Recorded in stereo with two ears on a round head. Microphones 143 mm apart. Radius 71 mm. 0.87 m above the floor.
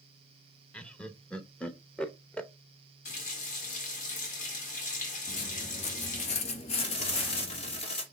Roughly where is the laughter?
Centre.